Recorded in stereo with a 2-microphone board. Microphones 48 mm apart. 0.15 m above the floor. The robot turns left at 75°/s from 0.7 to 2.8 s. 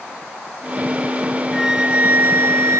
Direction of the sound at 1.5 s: Straight ahead.